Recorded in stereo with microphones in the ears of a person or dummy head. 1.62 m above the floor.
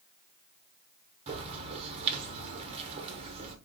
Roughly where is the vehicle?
No vehicle in this recording.